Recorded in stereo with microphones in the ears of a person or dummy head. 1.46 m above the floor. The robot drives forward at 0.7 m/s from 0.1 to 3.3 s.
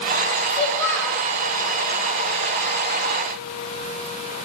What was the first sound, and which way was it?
A child speaking, 10° left (ahead or behind).